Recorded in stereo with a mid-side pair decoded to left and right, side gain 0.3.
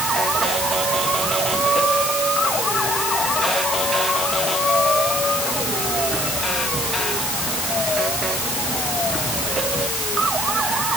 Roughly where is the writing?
I don't hear writing.